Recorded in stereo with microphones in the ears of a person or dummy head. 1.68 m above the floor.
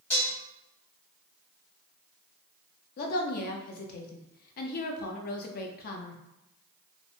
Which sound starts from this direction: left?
A woman speaking, at 3.0 s.